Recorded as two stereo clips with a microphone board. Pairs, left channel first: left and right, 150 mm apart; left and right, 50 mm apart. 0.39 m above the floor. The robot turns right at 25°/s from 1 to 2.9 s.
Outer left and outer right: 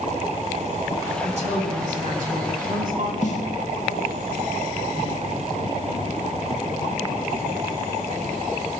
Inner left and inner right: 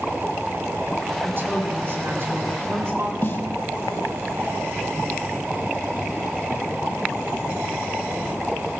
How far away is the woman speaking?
About 2.5 m.